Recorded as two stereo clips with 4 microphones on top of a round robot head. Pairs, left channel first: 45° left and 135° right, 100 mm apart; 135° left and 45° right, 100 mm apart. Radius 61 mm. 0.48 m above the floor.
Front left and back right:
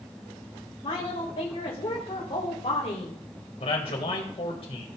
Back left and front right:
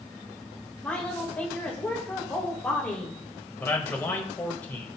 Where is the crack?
I don't hear a crack.